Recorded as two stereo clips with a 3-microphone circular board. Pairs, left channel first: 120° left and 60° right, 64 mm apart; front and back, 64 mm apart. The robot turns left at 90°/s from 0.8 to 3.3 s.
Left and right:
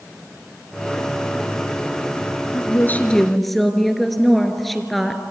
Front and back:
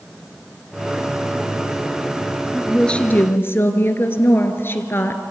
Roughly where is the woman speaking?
Left.